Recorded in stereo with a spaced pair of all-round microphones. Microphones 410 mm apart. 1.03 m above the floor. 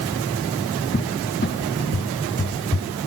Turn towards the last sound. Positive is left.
turn(degrees=30)  # may be behind; listen again after turning